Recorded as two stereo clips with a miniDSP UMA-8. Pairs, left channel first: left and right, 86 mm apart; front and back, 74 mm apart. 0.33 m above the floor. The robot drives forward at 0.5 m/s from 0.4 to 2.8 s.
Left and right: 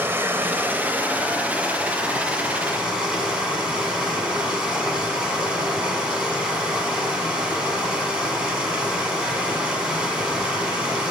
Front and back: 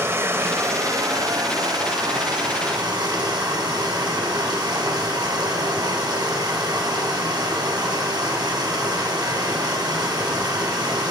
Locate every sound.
0.0 s running water: 145° right, 0.8 m; by 11.1 s 170° right, 1.7 m